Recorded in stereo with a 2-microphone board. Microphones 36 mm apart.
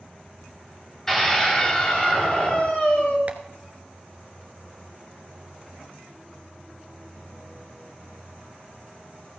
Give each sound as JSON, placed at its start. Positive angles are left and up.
{"t": 1.1, "sound": "a scream", "side_deg": 15, "distance_m": 3.5}
{"t": 3.3, "sound": "tapping", "side_deg": -45, "distance_m": 1.2}